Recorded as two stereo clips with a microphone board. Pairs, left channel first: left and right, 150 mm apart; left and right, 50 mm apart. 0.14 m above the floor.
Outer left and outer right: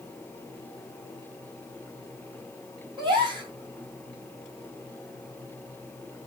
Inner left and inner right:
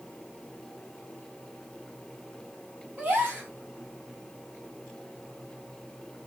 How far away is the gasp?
About 1.8 m.